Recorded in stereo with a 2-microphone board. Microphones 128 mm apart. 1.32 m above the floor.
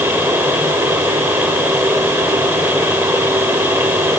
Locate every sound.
Only background noise.